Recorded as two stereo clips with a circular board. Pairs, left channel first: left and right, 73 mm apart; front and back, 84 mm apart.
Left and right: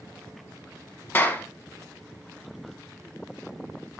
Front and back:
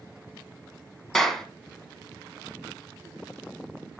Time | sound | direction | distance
1.1 | a clap | 80° left | 1.2 m